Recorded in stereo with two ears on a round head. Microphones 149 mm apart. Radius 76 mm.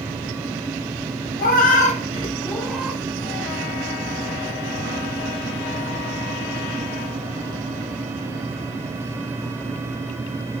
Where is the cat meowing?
55° left (ahead or behind), 0.8 m; by 3.0 s 10° right (ahead or behind), 0.5 m.